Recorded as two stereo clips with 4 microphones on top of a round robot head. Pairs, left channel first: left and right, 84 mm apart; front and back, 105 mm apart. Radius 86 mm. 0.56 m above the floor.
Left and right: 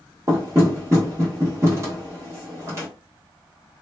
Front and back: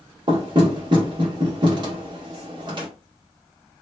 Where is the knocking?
145° right, 1.4 m.